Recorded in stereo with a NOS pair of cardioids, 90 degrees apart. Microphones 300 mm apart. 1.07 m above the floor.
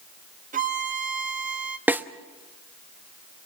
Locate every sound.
0.5 s a violin: 25° right, 1.8 m
1.9 s a snare drum: 5° right, 1.0 m